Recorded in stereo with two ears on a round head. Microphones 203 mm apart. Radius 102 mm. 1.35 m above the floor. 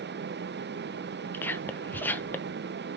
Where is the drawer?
I don't hear a drawer.